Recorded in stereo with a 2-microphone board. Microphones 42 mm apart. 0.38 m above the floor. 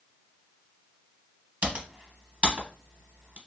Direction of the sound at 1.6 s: 30° right (ahead or behind).